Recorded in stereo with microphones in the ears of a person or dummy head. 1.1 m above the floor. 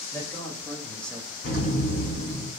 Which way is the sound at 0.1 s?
20° left (ahead or behind).